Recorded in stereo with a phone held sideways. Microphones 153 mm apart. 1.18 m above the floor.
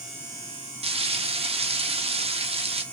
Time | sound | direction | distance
0.8 | frying | 35° right (ahead or behind) | 0.8 m